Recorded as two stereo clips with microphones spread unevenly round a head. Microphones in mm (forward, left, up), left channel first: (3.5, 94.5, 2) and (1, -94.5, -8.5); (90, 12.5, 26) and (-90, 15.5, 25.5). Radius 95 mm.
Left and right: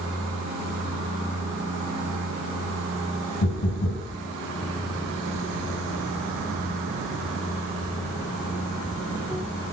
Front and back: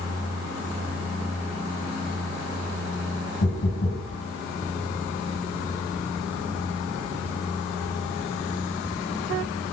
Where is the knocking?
50° left, 9.5 m.